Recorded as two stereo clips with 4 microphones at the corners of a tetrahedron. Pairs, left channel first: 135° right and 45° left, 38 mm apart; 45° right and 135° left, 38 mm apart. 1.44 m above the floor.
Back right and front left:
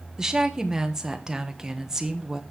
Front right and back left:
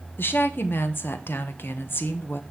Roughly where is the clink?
I don't hear a clink.